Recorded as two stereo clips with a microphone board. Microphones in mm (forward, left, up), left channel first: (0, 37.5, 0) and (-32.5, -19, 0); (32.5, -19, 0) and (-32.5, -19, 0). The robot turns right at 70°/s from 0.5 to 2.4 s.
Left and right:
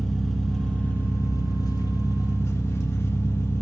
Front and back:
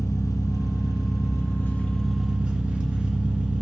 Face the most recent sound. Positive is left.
turn(degrees=110)